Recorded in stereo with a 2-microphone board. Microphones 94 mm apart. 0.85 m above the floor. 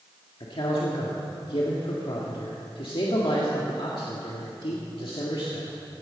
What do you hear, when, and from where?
0.4 s a man speaking: 65° left (ahead or behind), 1.8 m